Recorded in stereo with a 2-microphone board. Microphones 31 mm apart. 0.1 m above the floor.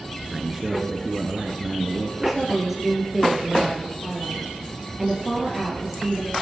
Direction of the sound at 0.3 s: 15° right (ahead or behind).